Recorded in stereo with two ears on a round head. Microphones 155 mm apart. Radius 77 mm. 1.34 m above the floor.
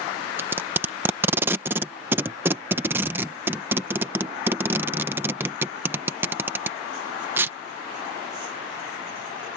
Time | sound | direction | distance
0.4 | tape being pulled | 15° right (ahead or behind) | ?